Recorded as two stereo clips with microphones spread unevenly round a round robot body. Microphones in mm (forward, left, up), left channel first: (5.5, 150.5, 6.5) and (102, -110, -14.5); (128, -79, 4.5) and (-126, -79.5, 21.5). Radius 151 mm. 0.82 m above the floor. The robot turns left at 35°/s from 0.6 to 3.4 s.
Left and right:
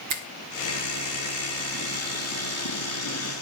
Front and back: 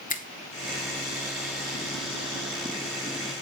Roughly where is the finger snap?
Ahead right.